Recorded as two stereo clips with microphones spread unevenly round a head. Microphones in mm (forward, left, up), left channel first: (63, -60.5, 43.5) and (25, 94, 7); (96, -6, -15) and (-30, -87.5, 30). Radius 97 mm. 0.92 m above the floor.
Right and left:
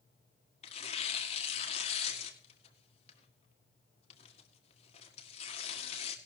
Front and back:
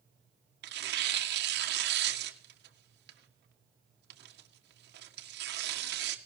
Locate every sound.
0.6 s tearing paper: 135° right, 1.7 m